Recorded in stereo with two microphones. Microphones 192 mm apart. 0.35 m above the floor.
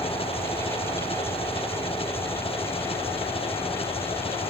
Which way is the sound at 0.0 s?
30° left (ahead or behind).